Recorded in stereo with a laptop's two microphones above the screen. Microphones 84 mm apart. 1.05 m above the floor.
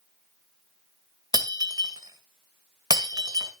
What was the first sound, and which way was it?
Breaking glass, 45° right (ahead or behind).